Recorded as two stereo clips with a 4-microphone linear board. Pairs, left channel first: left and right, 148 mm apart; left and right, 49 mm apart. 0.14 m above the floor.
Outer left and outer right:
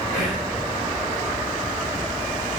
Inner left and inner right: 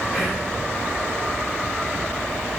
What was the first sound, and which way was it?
Whispering, 5° left (ahead or behind).